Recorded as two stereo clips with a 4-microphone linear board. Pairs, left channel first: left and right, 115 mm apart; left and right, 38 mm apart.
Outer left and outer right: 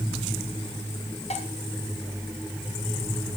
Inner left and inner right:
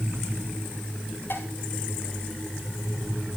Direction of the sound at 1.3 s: 65° left (ahead or behind).